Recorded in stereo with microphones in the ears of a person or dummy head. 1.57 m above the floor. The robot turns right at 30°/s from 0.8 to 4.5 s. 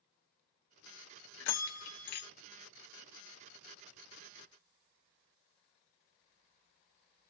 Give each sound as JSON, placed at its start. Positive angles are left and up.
{"t": 1.4, "sound": "a bell", "side_deg": 70, "distance_m": 0.5}